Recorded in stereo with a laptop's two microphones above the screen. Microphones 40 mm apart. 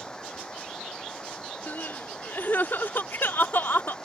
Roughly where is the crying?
Left.